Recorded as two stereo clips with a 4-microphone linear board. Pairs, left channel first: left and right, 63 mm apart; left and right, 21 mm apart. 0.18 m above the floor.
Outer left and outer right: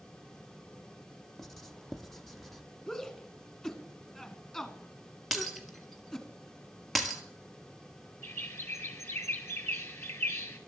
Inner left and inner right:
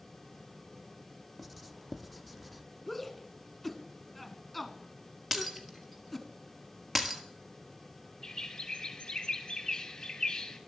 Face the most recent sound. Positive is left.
turn(degrees=45)  # may be behind; listen again after turning